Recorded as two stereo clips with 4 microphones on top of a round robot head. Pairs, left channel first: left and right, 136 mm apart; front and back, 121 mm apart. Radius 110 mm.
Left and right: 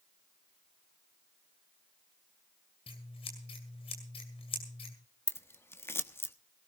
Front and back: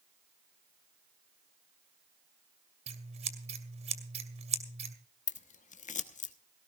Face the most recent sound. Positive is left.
turn(degrees=15)